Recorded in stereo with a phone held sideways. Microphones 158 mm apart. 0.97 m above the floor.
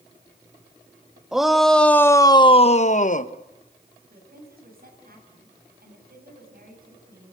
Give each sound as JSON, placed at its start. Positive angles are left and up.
{"t": 1.3, "sound": "a shout", "side_deg": -5, "distance_m": 1.8}
{"t": 4.1, "sound": "a woman speaking", "side_deg": -75, "distance_m": 8.0}